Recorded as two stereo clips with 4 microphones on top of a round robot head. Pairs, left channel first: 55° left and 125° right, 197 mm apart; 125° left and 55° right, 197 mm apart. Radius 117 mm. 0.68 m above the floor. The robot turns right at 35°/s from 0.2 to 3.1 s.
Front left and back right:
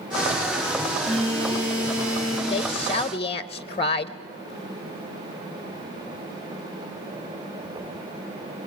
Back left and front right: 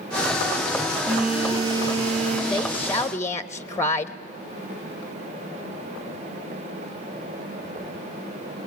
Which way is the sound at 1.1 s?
145° right.